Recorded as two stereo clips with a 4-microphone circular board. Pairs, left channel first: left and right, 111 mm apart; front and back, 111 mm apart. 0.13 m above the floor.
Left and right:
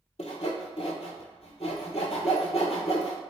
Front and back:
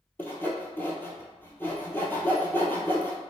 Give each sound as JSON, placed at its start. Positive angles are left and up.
{"t": 0.2, "sound": "sawing", "azimuth_deg": 70, "distance_m": 0.7}